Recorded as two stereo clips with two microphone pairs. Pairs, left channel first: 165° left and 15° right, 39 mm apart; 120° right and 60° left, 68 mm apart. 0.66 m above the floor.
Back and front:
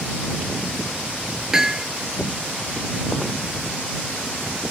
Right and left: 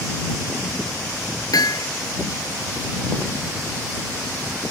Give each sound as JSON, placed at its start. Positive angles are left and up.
{"t": 1.5, "sound": "hammering", "azimuth_deg": -90}